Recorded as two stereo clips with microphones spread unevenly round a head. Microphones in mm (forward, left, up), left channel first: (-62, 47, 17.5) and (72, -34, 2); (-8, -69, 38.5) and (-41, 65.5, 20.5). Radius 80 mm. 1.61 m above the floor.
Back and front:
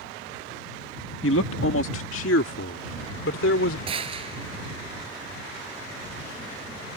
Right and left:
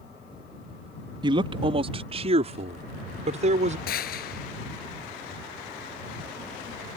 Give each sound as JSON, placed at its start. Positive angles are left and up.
{"t": 1.2, "sound": "a man speaking", "azimuth_deg": 160}
{"t": 3.9, "sound": "a gunshot", "azimuth_deg": -90}